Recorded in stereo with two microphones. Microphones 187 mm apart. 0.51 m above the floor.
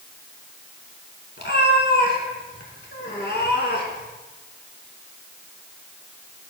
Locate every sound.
1.4 s a cat meowing: 70° left (ahead or behind), 1.4 m